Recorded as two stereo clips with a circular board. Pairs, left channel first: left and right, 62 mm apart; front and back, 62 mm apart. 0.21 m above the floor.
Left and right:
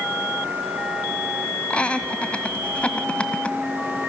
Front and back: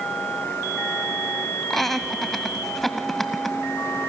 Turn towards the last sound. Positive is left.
turn(degrees=80)